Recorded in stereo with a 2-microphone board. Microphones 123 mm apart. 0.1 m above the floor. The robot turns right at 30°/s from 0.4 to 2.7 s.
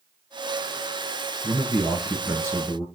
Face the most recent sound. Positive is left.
turn(degrees=-35)